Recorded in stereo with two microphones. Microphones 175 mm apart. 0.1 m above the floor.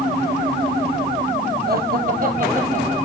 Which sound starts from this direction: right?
Laughter, at 1.7 s.